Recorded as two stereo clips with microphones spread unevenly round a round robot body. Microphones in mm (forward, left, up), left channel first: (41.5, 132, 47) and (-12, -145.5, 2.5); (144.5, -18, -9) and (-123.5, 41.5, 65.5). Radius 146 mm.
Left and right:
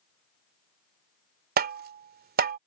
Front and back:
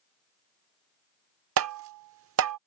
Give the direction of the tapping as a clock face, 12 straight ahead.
5 o'clock.